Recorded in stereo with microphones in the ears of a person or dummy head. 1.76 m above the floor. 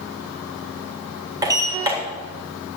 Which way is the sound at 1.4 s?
20° right (ahead or behind).